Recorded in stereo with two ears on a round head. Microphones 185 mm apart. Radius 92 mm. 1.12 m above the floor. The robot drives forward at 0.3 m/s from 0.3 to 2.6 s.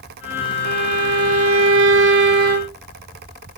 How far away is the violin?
About 0.6 m.